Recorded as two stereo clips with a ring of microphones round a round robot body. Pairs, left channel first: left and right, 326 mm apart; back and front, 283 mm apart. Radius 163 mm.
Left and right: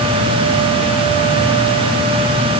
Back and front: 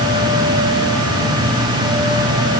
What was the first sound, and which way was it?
Only background noise.